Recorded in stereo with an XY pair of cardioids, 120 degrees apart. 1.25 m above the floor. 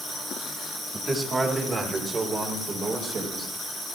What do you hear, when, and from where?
0.9 s a man speaking: 20° right, 2 m; by 3.5 s 55° right, 5 m